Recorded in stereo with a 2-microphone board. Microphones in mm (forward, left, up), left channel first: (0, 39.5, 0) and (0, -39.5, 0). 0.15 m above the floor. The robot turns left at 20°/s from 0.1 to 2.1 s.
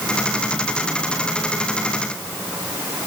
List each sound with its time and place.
Only background noise.